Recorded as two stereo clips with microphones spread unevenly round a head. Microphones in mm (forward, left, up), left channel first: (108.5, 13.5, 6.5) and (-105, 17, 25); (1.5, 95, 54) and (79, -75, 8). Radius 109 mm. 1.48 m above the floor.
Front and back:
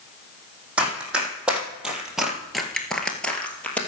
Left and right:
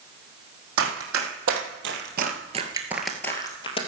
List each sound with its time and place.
0.8 s running footsteps: 100° right, 3.5 m; by 3.8 s 85° left, 2 m